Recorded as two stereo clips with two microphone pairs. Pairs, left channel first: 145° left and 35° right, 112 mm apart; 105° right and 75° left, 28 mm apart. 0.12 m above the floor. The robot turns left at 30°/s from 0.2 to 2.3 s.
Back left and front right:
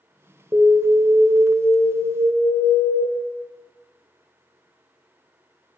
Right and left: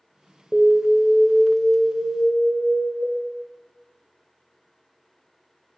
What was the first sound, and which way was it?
An alarm, 25° left.